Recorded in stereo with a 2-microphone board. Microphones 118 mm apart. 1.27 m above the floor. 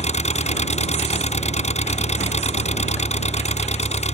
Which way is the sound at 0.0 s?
75° left (ahead or behind).